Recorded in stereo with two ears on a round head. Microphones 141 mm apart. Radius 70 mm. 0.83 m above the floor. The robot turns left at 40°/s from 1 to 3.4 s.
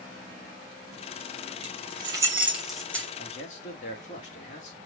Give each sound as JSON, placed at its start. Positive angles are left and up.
{"t": 1.6, "sound": "keys jangling", "side_deg": -45, "distance_m": 3.0}
{"t": 3.2, "sound": "a man speaking", "side_deg": 40, "distance_m": 2.0}